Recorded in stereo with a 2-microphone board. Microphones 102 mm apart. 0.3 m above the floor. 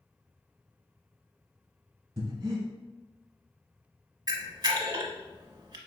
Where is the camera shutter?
45° right (ahead or behind), 0.7 m.